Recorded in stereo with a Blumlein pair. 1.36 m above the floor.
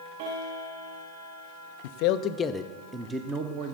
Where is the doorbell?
I don't hear a doorbell.